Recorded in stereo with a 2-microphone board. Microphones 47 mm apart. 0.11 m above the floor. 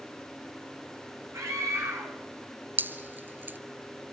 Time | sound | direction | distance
1.3 | a scream | 75° right (ahead or behind) | 7 m
2.8 | dripping | 45° right (ahead or behind) | 1.0 m